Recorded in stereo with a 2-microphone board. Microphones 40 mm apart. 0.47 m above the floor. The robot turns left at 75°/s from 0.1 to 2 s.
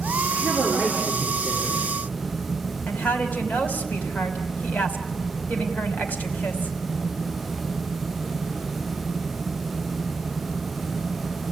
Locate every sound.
0.3 s a man speaking: 80° right, 6.5 m; by 1.9 s 165° left, 6.5 m
2.9 s a woman speaking: 40° left (ahead or behind), 3 m